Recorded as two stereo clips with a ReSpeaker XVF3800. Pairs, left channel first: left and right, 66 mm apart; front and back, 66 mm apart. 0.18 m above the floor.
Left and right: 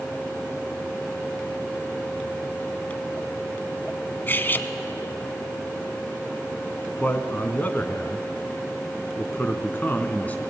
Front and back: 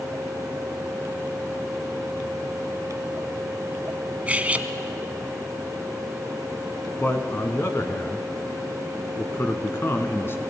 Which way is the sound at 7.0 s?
35° left.